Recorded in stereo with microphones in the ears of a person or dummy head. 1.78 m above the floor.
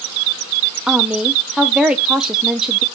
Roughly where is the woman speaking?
Centre.